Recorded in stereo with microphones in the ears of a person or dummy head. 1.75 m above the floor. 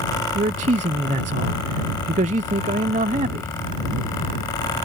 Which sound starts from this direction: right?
A man speaking, at 0.3 s.